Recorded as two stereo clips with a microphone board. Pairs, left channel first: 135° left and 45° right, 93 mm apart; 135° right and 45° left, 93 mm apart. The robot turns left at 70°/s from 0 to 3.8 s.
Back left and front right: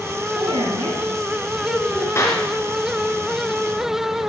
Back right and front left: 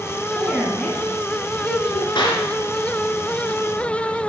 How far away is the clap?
About 3 m.